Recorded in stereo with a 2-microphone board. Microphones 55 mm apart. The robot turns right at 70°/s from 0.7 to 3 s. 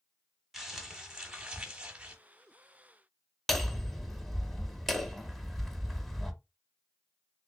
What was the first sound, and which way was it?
Crumpling, 5° right (ahead or behind).